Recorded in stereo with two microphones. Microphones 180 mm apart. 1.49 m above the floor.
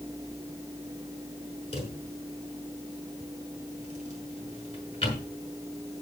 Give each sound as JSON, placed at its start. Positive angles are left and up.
{"t": 1.7, "sound": "a drawer", "side_deg": 35, "distance_m": 6.0}